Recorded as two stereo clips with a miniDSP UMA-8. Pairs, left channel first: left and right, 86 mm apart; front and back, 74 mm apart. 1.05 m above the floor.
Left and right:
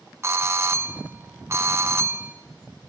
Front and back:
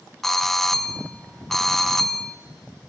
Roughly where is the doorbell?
Right.